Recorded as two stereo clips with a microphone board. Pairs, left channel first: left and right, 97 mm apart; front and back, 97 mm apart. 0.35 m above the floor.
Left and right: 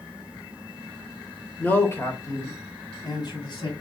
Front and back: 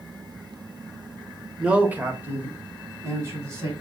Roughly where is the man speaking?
Behind left.